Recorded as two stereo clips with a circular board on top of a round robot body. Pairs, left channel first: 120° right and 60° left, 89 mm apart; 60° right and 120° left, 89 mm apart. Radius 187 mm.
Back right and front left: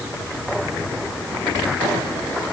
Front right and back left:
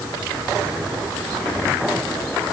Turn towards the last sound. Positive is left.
No sound to turn to.